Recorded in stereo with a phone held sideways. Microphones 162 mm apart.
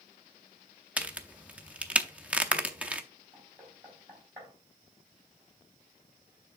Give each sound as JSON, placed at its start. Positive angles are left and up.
{"t": 1.0, "sound": "a crack", "side_deg": -10, "distance_m": 0.6}
{"t": 3.3, "sound": "knocking", "side_deg": -15, "distance_m": 4.0}